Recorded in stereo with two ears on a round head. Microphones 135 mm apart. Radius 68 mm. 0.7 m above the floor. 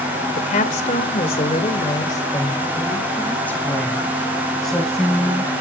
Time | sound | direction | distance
0.3 | a woman speaking | 55° left (ahead or behind) | 2.5 m